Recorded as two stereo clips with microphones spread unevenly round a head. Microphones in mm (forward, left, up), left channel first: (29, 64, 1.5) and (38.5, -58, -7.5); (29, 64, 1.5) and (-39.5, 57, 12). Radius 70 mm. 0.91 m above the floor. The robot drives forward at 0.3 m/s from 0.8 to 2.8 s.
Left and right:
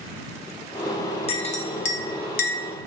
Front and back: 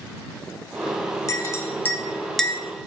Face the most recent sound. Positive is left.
turn(degrees=110)